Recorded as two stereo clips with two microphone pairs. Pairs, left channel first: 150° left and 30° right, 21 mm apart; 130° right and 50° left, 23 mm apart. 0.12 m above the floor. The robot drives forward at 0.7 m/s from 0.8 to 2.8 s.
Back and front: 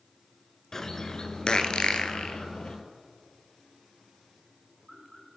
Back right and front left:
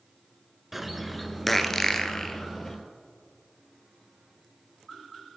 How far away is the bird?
About 1.1 m.